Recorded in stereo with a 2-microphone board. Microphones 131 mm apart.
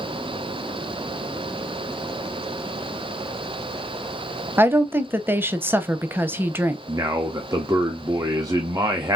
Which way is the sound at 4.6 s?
15° right (ahead or behind).